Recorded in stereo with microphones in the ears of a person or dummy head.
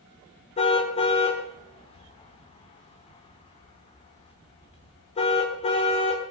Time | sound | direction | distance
0.6 | a car horn | 30° left (ahead or behind) | 2.5 m